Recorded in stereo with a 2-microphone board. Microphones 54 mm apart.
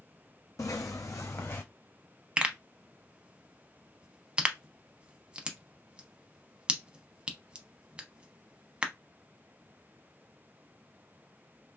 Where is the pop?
20° right (ahead or behind), 0.6 m.